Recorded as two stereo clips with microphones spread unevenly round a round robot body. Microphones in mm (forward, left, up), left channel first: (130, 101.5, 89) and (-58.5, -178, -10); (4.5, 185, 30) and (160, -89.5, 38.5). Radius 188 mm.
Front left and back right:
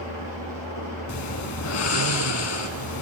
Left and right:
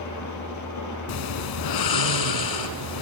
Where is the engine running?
90° left, 6 m.